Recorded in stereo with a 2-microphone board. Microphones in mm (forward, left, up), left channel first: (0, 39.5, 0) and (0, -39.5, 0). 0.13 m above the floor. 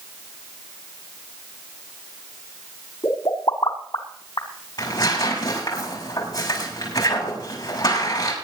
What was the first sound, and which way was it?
A pop, 60° left (ahead or behind).